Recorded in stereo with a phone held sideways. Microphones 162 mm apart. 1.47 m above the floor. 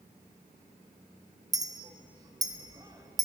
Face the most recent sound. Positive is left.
turn(degrees=-25)  # may be behind; listen again after turning